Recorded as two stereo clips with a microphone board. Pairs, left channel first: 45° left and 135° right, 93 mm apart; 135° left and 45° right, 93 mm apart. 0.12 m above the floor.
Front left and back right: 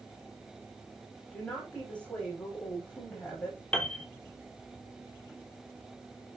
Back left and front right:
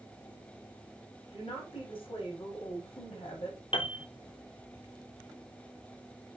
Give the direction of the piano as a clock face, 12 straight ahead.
8 o'clock.